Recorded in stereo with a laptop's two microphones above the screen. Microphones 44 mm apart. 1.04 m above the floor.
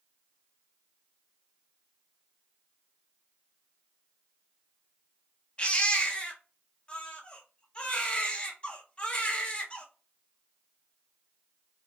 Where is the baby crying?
30° left (ahead or behind), 0.6 m.